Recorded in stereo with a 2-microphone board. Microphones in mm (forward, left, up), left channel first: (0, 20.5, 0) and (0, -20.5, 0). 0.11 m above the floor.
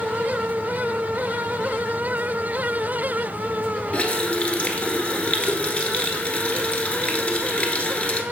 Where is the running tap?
35° left (ahead or behind), 0.9 m.